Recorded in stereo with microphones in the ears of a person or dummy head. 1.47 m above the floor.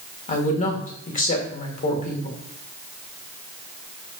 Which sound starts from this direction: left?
A woman speaking, at 0.3 s.